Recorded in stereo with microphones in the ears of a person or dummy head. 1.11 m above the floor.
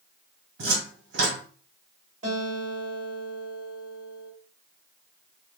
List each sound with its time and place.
0.6 s a cupboard door: 65° right (ahead or behind), 1.7 m
2.2 s a guitar: 45° right (ahead or behind), 2.5 m